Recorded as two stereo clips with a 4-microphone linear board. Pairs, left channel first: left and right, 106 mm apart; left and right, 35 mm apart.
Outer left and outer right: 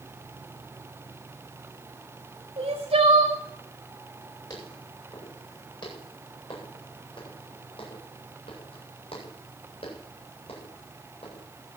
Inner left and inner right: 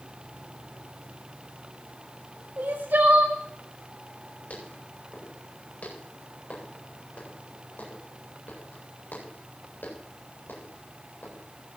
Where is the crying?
75° right (ahead or behind), 4.5 m.